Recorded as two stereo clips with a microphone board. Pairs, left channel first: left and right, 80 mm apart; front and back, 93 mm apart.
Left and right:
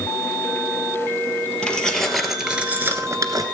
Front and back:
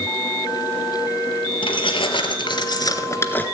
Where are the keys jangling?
10° left, 2 m; by 3.5 s 70° right, 1.3 m.